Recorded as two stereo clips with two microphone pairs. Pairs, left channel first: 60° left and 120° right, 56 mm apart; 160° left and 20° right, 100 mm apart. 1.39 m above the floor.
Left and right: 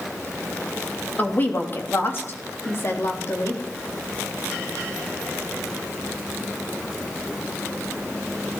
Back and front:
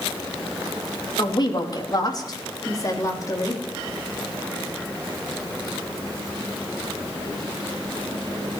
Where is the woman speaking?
120° left, 3 m; by 3.6 s 105° left, 3.5 m.